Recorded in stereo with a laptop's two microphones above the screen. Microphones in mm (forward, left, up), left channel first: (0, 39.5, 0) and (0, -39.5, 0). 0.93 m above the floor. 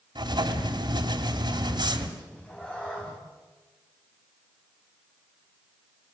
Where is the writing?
85° right, 3 m.